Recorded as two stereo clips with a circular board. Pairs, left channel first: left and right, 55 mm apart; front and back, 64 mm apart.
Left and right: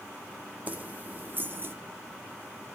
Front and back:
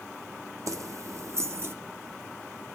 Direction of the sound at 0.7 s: 150° right.